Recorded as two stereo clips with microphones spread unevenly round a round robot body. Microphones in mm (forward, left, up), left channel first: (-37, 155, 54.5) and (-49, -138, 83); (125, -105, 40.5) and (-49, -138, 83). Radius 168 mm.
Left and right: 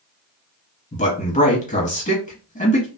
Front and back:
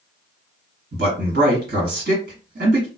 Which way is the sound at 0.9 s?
145° left.